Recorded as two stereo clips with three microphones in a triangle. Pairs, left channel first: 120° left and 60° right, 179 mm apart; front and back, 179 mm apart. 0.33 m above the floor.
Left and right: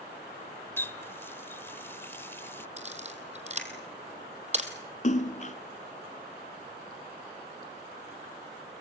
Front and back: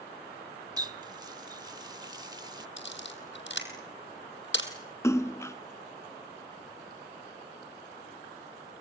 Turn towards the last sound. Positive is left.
turn(degrees=75)